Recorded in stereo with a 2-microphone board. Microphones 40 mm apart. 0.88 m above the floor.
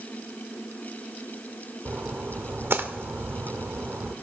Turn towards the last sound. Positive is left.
turn(degrees=-85)